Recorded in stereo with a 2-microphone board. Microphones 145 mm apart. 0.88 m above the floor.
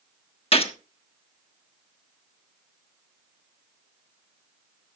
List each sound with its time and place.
0.5 s a gunshot: 40° left (ahead or behind), 1.1 m